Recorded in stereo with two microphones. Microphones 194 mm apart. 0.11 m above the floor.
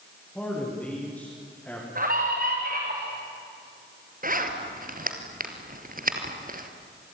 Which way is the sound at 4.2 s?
45° right (ahead or behind).